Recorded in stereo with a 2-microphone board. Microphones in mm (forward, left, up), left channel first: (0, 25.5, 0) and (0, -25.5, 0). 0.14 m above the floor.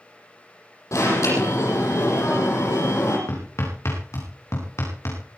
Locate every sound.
0.9 s an alarm: 75° left (ahead or behind), 8.5 m
3.3 s hammering: 65° left (ahead or behind), 8.5 m